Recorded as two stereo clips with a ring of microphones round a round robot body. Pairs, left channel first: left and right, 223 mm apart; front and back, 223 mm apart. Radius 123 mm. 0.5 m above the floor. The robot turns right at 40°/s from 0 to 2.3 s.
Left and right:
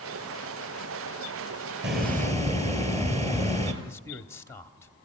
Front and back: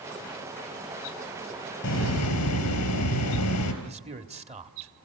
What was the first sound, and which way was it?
A hiss, 45° right.